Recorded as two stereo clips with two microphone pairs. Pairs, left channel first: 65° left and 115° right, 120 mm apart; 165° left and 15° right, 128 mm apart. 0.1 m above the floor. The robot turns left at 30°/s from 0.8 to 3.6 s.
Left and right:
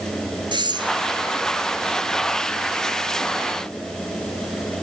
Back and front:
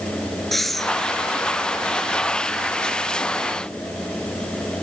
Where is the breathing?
105° right, 1.6 m; by 0.9 s 110° right, 1.6 m.